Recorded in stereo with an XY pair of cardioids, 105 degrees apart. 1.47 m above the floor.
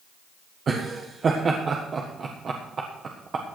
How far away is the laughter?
About 1.4 m.